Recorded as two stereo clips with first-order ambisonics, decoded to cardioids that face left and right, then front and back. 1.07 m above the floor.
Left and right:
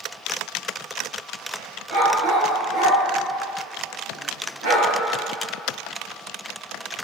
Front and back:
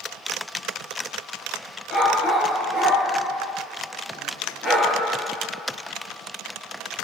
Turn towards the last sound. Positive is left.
turn(degrees=-90)